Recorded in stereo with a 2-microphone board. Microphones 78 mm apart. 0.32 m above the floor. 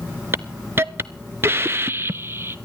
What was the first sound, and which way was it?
A hiss, 30° right (ahead or behind).